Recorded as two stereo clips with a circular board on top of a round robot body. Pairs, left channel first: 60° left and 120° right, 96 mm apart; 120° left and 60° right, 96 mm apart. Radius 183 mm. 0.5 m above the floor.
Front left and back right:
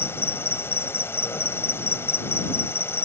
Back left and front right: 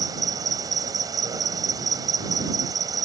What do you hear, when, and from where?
0.0 s an insect: 5° right